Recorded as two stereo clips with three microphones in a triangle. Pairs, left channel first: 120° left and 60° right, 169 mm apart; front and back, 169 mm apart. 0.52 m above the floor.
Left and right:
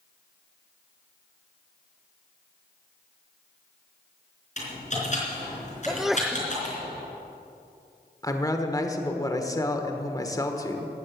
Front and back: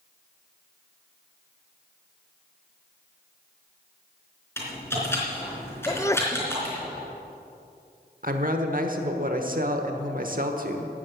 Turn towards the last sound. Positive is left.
turn(degrees=-175)